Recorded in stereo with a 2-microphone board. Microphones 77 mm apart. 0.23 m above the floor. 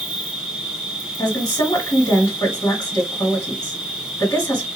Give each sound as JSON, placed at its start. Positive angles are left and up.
{"t": 0.0, "sound": "an insect", "side_deg": -10, "distance_m": 2.0}
{"t": 1.2, "sound": "a woman speaking", "side_deg": 50, "distance_m": 2.0}